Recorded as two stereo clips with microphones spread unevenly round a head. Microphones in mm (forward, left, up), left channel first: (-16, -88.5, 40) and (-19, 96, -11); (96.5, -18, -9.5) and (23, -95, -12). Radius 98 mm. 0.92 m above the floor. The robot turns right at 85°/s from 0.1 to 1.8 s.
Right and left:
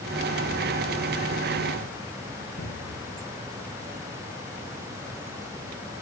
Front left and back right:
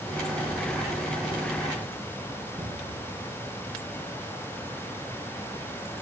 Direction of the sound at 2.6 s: 100° right.